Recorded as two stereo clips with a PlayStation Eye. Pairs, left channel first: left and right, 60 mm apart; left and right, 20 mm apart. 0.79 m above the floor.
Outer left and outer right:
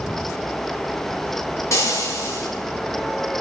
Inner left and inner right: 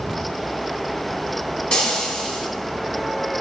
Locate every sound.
1.7 s frying: 55° left (ahead or behind), 4 m